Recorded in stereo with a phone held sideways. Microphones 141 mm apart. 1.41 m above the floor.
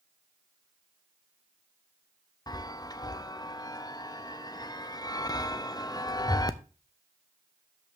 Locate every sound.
2.5 s a chime: 30° left (ahead or behind), 0.6 m